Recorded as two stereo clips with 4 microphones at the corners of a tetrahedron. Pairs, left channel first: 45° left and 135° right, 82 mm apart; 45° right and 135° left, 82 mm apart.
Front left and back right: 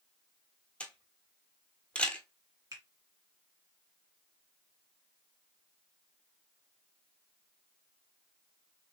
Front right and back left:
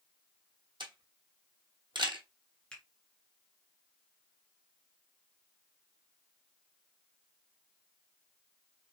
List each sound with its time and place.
0.8 s a camera shutter: 120° left, 0.8 m
2.7 s a finger snap: 115° right, 1.2 m